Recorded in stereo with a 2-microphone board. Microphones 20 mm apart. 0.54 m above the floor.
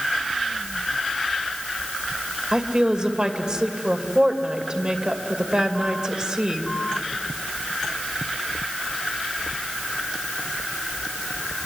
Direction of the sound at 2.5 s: 45° right (ahead or behind).